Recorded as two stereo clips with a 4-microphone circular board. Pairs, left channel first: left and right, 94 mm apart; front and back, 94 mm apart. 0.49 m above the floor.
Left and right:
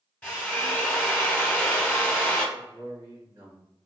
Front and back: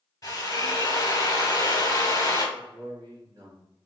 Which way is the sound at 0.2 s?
25° left.